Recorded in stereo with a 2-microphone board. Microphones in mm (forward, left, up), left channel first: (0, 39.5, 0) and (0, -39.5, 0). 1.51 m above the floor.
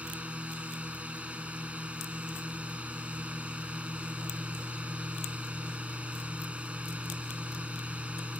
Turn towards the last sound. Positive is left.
turn(degrees=-15)  # may be behind; listen again after turning